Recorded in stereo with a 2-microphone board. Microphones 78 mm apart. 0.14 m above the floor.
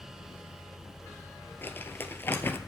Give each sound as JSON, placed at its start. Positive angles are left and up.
{"t": 1.6, "sound": "crumpling", "side_deg": 30, "distance_m": 1.2}